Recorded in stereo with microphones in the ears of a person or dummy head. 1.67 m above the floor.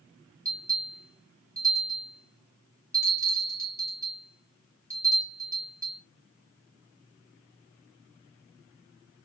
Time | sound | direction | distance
0.5 | a bell | 20° right (ahead or behind) | 2.5 m